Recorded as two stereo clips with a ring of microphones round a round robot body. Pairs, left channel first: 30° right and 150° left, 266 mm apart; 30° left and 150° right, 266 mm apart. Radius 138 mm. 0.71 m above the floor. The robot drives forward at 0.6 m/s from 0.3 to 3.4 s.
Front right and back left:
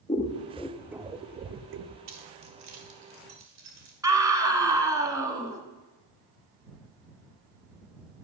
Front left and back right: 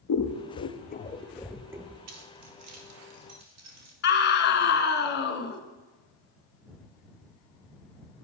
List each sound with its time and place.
0.1 s scissors: 35° left, 0.8 m; by 2.0 s 140° left, 0.8 m
2.1 s keys jangling: 175° left, 1.1 m; by 3.9 s straight behind, 1.9 m
4.0 s a scream: 75° left, 1.2 m